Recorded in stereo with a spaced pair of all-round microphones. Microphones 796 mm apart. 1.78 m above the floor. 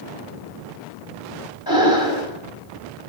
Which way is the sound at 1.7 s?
30° left (ahead or behind).